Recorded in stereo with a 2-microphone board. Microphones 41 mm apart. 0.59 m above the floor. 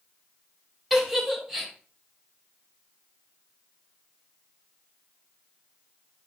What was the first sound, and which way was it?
A giggle, 10° right (ahead or behind).